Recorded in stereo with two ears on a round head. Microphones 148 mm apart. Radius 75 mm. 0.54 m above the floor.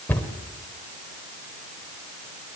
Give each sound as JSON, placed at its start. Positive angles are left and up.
{"t": 0.1, "sound": "a cupboard door", "side_deg": 10, "distance_m": 2.5}